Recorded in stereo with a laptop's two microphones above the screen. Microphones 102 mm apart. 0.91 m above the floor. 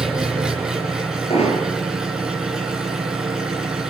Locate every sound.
0.0 s an engine running: 5° right (ahead or behind), 7 m
1.3 s hammering: 80° left, 10 m